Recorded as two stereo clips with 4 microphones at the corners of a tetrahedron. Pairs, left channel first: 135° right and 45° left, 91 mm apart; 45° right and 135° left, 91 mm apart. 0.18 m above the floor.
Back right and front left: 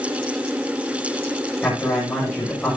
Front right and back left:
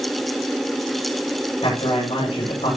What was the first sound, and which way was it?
A man speaking, 60° right.